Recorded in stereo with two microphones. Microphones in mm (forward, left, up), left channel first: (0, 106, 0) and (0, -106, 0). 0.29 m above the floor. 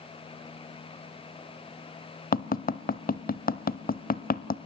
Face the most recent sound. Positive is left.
turn(degrees=45)  # may be behind; listen again after turning